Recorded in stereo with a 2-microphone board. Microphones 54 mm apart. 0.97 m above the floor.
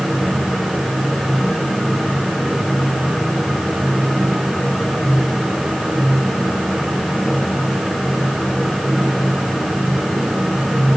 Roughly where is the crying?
I don't hear crying.